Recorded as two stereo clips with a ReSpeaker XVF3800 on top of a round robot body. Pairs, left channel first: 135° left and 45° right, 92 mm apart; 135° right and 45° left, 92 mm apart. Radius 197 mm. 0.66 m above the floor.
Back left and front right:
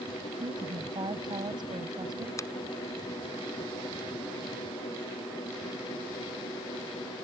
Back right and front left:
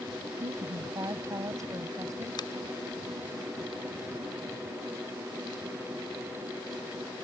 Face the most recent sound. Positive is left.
turn(degrees=-170)